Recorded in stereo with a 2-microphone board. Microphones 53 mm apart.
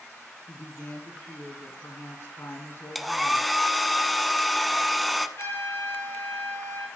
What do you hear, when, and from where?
0.5 s a woman speaking: 50° left (ahead or behind), 2.5 m
3.0 s a hair dryer: 5° left (ahead or behind), 0.7 m
5.4 s a trumpet: 70° left (ahead or behind), 4.5 m